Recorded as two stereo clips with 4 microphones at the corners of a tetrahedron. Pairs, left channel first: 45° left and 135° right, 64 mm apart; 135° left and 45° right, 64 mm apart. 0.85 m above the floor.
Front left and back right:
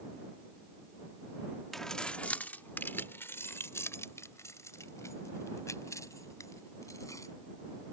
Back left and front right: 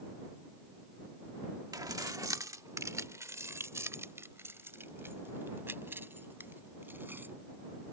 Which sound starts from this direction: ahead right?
Keys jangling, at 1.7 s.